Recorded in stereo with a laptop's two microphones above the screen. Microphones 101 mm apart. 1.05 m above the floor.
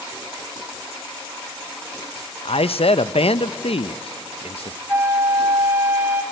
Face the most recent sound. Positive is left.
turn(degrees=-25)  # may be behind; listen again after turning